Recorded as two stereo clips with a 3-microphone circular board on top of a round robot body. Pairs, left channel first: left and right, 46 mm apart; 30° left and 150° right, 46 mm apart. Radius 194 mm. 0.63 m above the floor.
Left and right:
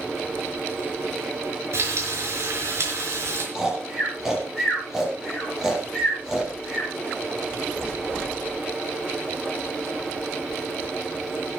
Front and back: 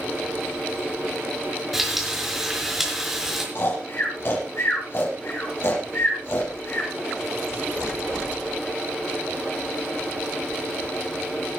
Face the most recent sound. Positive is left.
turn(degrees=-10)